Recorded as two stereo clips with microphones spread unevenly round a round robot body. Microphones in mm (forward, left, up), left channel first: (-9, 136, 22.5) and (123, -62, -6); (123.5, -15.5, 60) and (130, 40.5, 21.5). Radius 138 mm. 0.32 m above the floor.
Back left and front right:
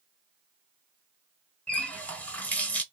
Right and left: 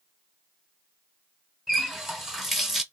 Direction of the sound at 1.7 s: 35° left.